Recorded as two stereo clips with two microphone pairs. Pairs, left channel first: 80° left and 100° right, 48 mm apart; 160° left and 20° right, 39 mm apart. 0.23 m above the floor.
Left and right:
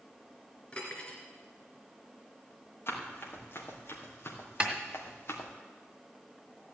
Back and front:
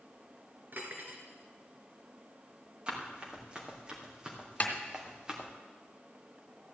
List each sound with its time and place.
0.7 s cutlery clinking: 15° left, 2 m
2.9 s running footsteps: 45° left, 4 m; by 5.5 s 55° left, 2.5 m
4.6 s a snare drum: 160° right, 1.8 m